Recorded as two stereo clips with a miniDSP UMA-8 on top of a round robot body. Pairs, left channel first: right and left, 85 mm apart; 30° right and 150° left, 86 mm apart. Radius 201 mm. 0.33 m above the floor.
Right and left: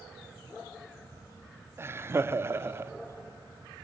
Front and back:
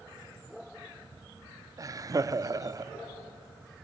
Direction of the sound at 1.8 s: 135° left.